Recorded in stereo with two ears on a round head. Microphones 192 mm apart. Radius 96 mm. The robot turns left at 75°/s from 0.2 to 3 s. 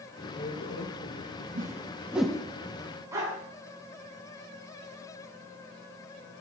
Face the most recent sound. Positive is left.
turn(degrees=-15)  # may be behind; listen again after turning